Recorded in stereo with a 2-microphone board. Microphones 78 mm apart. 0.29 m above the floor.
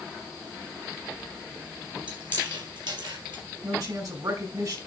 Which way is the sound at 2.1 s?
75° right (ahead or behind).